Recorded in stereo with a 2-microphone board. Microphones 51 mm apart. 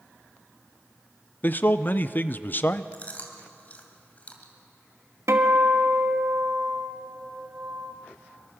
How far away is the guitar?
About 1.8 m.